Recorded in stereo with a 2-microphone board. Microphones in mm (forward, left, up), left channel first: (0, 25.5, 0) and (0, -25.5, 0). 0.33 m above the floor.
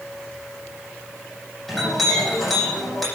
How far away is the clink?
About 10 m.